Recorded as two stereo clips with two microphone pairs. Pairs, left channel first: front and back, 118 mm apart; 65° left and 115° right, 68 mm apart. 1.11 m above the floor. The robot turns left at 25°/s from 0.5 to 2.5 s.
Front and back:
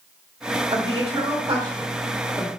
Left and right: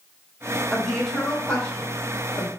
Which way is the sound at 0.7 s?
155° left.